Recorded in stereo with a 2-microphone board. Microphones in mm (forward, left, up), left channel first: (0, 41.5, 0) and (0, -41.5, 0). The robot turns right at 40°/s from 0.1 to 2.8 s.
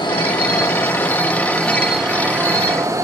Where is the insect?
115° left, 2 m; by 3.0 s 135° right, 2 m.